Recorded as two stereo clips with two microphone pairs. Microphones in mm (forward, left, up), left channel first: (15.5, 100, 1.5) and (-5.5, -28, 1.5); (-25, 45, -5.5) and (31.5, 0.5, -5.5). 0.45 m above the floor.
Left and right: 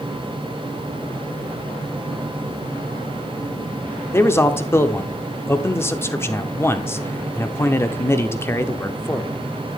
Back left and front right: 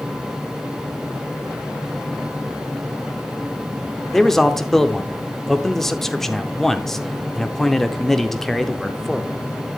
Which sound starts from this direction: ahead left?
A man speaking, at 4.1 s.